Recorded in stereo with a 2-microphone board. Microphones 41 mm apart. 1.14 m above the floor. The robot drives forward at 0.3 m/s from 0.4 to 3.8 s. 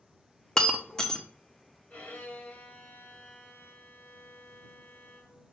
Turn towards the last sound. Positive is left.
turn(degrees=55)  # may be behind; listen again after turning